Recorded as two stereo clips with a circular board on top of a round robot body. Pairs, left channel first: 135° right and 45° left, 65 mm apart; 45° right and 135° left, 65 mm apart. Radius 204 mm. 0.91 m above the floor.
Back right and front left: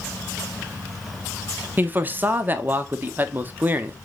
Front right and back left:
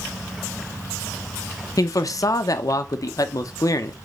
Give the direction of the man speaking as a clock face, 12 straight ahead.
1 o'clock.